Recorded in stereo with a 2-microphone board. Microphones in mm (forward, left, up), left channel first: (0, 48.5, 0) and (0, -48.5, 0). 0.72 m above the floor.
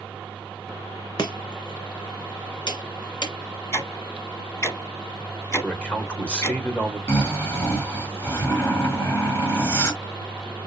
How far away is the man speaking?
About 2 m.